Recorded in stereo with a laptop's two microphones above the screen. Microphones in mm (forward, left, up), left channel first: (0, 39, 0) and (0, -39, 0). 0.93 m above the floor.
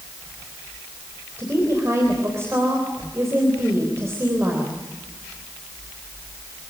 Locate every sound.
1.4 s a woman speaking: 35° right (ahead or behind), 3.5 m